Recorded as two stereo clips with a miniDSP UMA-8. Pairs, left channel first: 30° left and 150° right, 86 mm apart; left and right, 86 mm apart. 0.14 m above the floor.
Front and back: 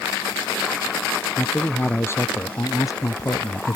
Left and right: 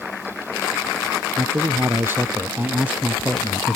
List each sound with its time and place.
1.4 s a man speaking: 35° right; by 3.8 s 5° right